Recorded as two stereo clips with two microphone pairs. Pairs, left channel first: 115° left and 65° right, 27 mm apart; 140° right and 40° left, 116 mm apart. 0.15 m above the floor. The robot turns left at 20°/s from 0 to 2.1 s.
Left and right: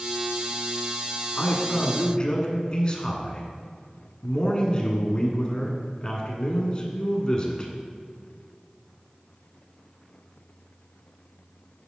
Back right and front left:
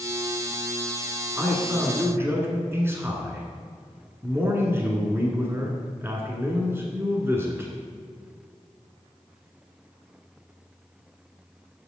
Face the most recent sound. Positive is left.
turn(degrees=95)